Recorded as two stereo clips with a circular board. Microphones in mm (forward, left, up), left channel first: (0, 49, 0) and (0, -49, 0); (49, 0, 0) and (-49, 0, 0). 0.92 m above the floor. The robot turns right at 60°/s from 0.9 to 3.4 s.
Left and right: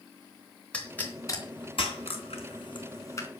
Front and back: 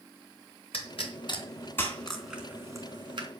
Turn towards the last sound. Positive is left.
turn(degrees=160)